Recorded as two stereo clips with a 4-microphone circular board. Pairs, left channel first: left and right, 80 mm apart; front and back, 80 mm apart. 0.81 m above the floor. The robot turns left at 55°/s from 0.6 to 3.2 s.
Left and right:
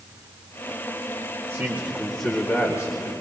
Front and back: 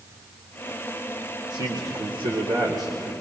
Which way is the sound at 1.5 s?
145° right.